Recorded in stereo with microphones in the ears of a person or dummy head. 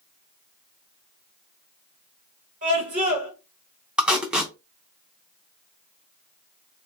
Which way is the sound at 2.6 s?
40° right (ahead or behind).